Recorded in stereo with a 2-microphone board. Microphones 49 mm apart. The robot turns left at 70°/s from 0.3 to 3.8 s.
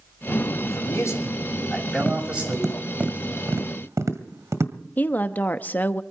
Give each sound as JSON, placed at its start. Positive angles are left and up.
{"t": 0.6, "sound": "a man speaking", "azimuth_deg": 105, "distance_m": 6.0}
{"t": 2.0, "sound": "tapping", "side_deg": 35, "distance_m": 1.7}
{"t": 5.0, "sound": "a woman speaking", "side_deg": 35, "distance_m": 0.9}